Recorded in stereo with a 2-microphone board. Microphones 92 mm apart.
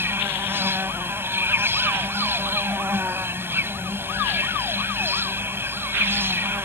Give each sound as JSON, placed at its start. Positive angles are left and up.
{"t": 0.0, "sound": "an insect", "side_deg": -25}